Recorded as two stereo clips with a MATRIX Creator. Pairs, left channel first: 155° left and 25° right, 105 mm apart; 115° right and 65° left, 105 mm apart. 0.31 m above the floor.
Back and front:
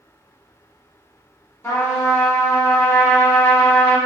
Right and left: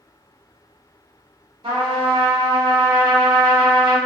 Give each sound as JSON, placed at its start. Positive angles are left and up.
{"t": 1.6, "sound": "a trumpet", "azimuth_deg": 95, "distance_m": 1.3}